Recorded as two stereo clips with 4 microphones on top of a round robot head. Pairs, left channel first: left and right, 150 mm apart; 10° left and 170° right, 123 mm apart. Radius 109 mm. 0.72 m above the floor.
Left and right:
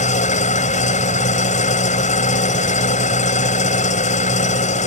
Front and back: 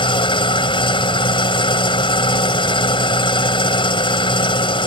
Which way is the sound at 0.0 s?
55° left.